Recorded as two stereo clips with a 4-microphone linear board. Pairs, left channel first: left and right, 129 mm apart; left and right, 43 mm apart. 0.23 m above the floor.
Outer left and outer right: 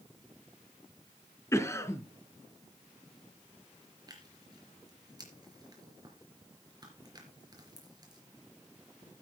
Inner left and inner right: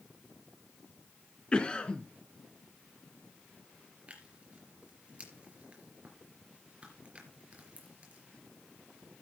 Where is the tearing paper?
30° right (ahead or behind), 4 m.